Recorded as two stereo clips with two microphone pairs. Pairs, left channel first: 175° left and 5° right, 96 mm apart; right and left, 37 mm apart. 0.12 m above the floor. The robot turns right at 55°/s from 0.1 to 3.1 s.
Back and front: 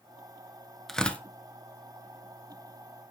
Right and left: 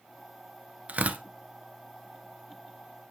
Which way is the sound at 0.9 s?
85° left.